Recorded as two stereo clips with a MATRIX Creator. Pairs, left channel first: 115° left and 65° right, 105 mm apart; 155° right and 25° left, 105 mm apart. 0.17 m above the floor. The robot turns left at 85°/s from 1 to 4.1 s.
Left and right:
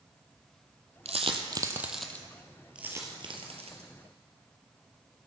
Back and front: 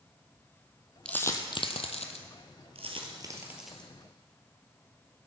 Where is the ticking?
I don't hear ticking.